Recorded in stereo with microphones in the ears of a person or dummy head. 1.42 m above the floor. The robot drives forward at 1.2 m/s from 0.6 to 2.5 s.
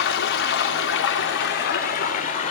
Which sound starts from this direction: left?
Running water, at 0.0 s.